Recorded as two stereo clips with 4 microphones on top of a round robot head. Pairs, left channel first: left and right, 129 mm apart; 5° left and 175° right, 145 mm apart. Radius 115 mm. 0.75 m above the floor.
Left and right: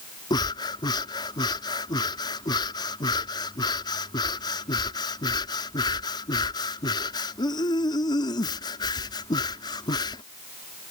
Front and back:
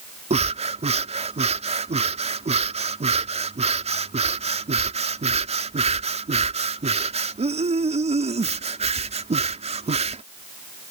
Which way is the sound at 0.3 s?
150° left.